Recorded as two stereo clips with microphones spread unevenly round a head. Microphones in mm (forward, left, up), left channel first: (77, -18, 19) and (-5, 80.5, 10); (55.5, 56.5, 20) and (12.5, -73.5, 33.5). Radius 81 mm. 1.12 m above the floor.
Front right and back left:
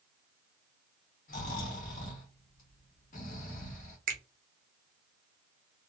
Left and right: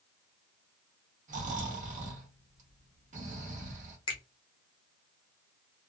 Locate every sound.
1.3 s snoring: 80° right, 1.0 m
4.1 s a finger snap: 130° left, 0.7 m